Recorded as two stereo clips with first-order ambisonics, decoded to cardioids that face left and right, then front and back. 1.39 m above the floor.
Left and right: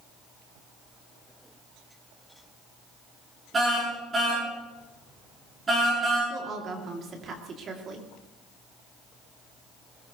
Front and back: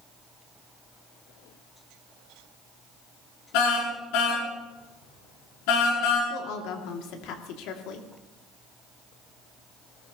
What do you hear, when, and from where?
3.5 s a car horn: 20° right, 8 m
6.3 s a woman speaking: 30° right, 2.5 m